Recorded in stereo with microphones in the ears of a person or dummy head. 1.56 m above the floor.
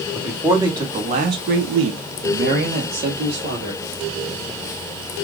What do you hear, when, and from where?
0.1 s a man speaking: 5° right (ahead or behind), 0.9 m; by 3.8 s 35° right (ahead or behind), 1.4 m